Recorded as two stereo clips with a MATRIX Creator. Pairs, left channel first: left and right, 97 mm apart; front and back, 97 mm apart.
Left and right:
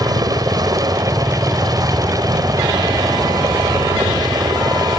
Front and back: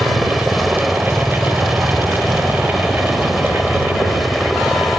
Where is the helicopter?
90° right.